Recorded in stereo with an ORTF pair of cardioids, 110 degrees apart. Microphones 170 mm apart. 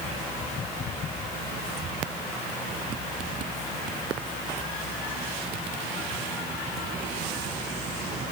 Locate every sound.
Only background noise.